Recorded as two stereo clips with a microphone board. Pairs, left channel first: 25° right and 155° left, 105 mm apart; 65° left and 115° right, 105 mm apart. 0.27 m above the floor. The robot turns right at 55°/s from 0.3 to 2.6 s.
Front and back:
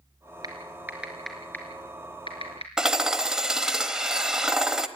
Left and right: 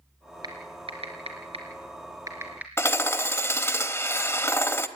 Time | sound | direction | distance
0.4 | typing on a keyboard | 155° right | 4 m
2.8 | hammering | 85° left | 0.9 m